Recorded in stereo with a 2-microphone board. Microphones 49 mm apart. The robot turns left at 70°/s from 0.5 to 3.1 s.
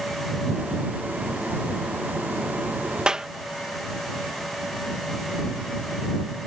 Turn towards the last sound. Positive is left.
turn(degrees=-15)  # may be behind; listen again after turning